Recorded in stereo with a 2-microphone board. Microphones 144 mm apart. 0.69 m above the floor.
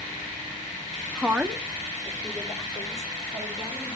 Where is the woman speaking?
5° right (ahead or behind), 0.6 m; by 4.0 s centre (ahead or behind), 3.5 m.